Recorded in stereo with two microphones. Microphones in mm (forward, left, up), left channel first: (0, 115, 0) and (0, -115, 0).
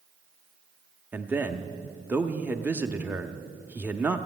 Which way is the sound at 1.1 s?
10° right (ahead or behind).